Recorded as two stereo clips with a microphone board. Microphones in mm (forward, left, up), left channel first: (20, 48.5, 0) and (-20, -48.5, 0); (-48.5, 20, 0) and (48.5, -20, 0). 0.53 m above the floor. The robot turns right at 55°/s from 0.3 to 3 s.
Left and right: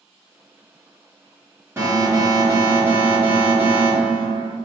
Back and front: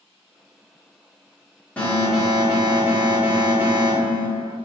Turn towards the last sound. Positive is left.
turn(degrees=-70)